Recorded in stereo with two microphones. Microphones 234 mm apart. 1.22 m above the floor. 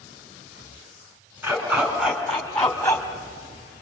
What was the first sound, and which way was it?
A dog barking, 5° right (ahead or behind).